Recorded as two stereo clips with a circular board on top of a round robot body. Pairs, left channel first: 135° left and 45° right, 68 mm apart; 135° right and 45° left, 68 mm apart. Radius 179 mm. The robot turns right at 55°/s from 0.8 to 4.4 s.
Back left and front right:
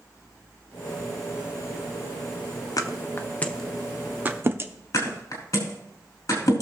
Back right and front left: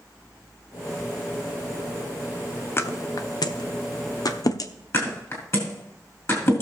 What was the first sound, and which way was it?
A thud, 165° left.